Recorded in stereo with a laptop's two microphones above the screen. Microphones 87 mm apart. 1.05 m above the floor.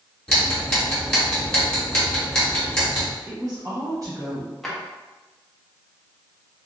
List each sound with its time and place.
0.3 s ticking: 10° left (ahead or behind), 1.1 m
3.3 s a woman speaking: 40° right (ahead or behind), 0.9 m
4.6 s a drawer: centre (ahead or behind), 0.8 m